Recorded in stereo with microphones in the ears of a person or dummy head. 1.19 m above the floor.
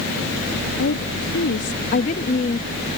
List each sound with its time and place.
0.8 s a woman speaking: 65° left (ahead or behind); by 2.7 s 30° left (ahead or behind)